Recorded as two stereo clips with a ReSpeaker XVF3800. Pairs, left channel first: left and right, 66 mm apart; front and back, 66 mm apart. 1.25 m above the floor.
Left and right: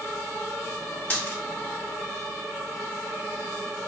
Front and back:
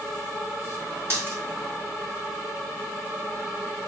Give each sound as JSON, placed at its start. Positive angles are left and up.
{"t": 1.1, "sound": "a dropped coin", "azimuth_deg": 150, "distance_m": 1.5}